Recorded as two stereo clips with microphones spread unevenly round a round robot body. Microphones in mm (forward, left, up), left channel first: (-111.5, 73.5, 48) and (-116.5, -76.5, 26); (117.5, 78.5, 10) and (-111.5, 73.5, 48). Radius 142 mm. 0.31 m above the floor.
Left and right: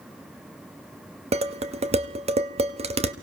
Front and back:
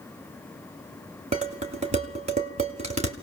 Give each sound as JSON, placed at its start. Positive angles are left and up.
{"t": 1.3, "sound": "dishes clattering", "azimuth_deg": -110, "distance_m": 1.1}